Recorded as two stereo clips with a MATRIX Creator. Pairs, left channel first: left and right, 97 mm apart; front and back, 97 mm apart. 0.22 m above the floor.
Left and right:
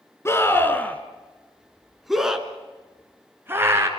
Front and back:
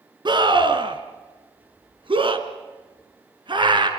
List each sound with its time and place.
0.2 s a scream: 150° left, 3 m; by 3.9 s 150° right, 3.5 m